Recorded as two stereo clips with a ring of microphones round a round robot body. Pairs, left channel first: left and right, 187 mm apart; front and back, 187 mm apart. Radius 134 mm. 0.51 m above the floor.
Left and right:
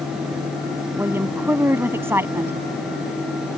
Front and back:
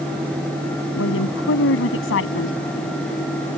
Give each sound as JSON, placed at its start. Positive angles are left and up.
{"t": 1.0, "sound": "a woman speaking", "azimuth_deg": -15}